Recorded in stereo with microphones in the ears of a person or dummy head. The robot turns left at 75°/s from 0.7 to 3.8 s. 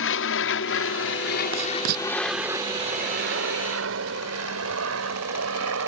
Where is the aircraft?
60° left (ahead or behind); by 5.9 s 75° right (ahead or behind).